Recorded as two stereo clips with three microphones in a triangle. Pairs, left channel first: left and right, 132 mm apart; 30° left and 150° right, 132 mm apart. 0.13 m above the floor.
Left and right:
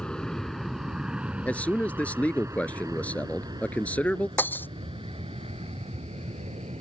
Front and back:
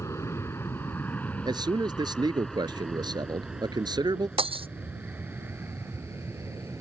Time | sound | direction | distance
0.0 | an aircraft | 20° left | ?
1.4 | a man speaking | 165° left | ?
4.4 | breaking glass | 165° left | ?